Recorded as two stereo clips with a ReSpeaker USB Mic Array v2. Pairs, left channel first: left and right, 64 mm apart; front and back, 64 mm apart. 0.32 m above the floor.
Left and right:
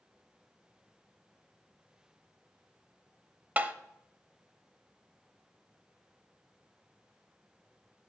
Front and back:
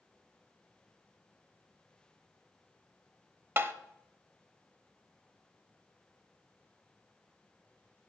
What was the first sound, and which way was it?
Tapping, 145° right.